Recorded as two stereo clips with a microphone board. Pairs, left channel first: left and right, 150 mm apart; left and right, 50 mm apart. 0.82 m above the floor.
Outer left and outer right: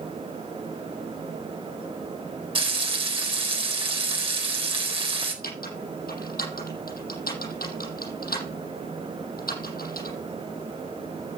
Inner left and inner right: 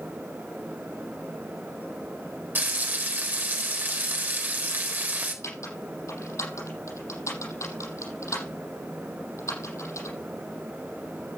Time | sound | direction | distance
2.5 | frying | 35° right (ahead or behind) | 4 m
5.4 | typing on a keyboard | 85° left | 7 m